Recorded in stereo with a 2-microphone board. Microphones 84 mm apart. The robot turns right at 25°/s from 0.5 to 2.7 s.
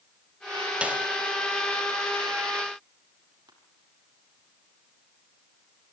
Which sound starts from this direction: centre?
A snare drum, at 0.8 s.